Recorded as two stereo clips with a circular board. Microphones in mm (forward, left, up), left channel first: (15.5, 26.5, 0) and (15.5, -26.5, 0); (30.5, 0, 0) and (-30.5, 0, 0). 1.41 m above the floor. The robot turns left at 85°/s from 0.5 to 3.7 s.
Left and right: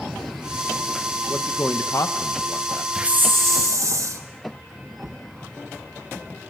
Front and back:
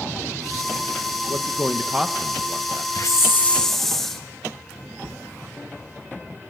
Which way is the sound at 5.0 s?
115° right.